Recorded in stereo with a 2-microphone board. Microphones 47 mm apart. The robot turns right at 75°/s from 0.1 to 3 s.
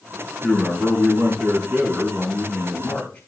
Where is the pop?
I don't hear a pop.